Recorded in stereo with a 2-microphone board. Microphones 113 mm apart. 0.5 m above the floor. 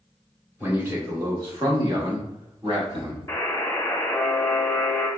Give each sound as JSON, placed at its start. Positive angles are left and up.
{"t": 0.6, "sound": "a man speaking", "side_deg": -15, "distance_m": 1.1}
{"t": 3.3, "sound": "a buzzer", "side_deg": 25, "distance_m": 1.0}